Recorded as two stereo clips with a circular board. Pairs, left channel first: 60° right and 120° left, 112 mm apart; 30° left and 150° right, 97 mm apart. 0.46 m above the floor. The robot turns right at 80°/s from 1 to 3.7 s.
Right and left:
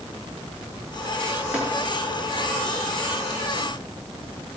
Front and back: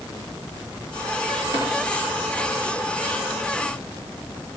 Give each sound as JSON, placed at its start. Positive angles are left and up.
{"t": 1.5, "sound": "tapping", "azimuth_deg": -160, "distance_m": 4.5}